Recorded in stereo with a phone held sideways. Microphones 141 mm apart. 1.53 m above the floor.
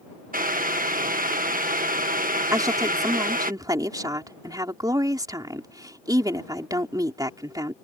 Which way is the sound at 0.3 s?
85° right.